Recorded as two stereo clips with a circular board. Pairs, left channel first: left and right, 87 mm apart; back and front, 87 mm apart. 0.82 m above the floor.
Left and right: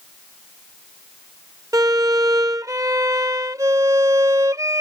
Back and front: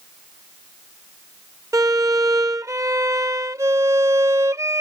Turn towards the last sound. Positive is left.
turn(degrees=-45)